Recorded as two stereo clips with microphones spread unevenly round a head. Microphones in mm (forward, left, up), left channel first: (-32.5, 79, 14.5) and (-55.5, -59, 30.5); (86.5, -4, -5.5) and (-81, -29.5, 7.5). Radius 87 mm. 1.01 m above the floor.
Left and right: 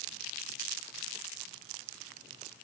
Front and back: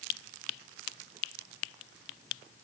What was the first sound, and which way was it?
Only background noise.